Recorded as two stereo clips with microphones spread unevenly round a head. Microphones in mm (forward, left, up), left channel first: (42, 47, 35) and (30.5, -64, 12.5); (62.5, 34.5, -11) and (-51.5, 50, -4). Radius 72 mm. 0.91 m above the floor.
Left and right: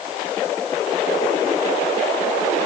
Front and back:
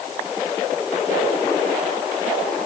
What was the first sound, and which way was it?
Only background noise.